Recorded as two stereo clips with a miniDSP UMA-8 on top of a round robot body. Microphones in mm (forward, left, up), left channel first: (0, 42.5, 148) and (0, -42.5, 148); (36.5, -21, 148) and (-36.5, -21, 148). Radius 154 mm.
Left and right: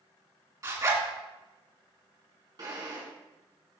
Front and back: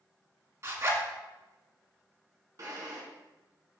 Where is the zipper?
135° right, 2 m.